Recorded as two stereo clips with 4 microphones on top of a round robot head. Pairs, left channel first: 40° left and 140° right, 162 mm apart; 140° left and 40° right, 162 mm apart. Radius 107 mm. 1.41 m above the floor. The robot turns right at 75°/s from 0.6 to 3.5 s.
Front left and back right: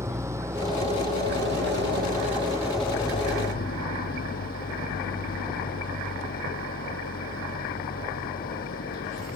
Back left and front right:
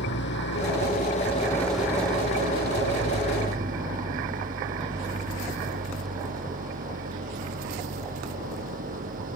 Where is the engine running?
145° left; by 9.4 s straight ahead.